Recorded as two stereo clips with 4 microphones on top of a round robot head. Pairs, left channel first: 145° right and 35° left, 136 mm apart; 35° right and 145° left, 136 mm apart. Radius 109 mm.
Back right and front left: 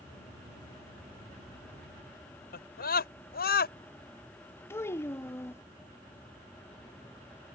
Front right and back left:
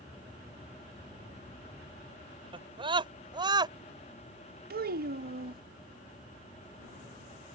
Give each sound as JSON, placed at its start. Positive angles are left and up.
{"t": 2.5, "sound": "a scream", "azimuth_deg": -155}
{"t": 4.7, "sound": "a child speaking", "azimuth_deg": 140}